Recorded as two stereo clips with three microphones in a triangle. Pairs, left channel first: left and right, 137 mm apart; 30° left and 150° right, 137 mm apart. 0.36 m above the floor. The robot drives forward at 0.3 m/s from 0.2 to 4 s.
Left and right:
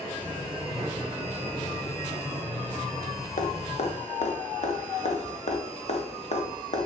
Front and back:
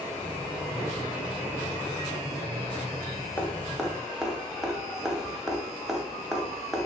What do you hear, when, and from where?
3.4 s dripping: 105° left, 0.5 m; by 6.9 s 125° left, 0.6 m